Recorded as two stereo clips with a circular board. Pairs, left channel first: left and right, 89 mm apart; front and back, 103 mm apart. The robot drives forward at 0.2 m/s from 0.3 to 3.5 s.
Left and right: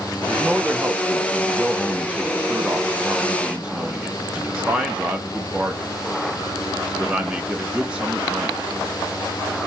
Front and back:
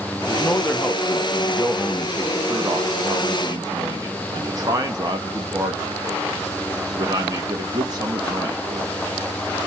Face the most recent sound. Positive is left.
turn(degrees=-160)